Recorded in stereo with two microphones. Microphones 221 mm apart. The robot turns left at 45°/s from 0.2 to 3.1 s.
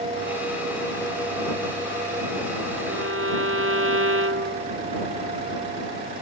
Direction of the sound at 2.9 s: 85° right.